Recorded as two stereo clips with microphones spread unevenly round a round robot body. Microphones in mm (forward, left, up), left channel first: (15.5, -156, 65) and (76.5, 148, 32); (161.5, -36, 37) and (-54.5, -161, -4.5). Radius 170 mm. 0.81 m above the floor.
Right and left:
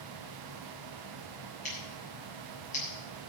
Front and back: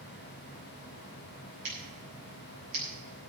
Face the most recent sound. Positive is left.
turn(degrees=-170)